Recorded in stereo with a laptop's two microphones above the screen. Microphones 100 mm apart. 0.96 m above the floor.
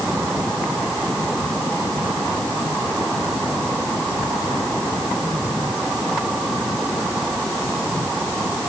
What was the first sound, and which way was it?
Only background noise.